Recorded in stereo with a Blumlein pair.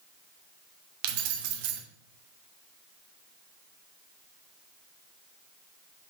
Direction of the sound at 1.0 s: 45° right.